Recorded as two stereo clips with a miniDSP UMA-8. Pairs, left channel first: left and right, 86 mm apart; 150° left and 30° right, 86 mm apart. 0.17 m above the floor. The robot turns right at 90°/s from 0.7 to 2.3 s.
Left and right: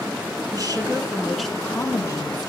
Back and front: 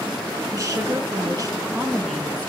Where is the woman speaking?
65° right, 1.8 m; by 2.5 s 80° left, 1.8 m.